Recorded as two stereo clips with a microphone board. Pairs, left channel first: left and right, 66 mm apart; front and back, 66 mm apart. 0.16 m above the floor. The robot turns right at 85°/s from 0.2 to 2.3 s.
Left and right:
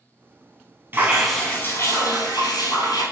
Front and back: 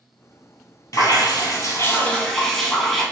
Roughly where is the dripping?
Ahead right.